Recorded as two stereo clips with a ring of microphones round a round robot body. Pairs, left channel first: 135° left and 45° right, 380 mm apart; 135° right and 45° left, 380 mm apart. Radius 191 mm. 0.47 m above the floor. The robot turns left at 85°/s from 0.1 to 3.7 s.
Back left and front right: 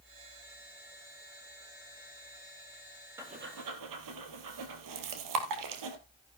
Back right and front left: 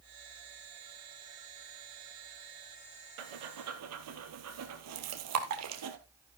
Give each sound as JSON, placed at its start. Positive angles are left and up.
{"t": 3.2, "sound": "breathing", "azimuth_deg": 40, "distance_m": 2.0}